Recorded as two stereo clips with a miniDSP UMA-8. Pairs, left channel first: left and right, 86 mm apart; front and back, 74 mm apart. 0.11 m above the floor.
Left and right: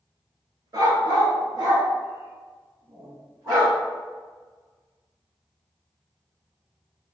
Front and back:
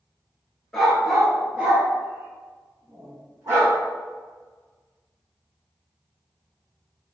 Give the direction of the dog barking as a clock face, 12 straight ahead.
3 o'clock.